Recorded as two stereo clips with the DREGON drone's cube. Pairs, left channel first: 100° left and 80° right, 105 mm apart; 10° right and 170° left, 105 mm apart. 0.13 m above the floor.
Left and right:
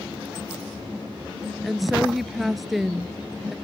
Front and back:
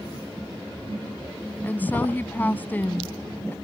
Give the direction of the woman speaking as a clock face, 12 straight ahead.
12 o'clock.